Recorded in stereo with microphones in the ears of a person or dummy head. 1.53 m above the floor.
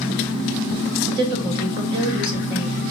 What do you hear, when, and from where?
1.1 s a woman speaking: 25° right (ahead or behind), 1.5 m